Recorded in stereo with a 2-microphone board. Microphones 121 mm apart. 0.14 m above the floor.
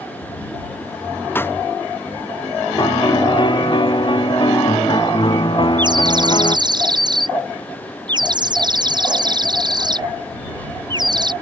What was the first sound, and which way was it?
A pop, 15° left (ahead or behind).